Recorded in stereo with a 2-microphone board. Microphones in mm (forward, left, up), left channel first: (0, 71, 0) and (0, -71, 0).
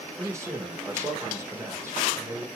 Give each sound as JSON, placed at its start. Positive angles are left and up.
{"t": 0.2, "sound": "a man speaking", "side_deg": -20, "distance_m": 1.1}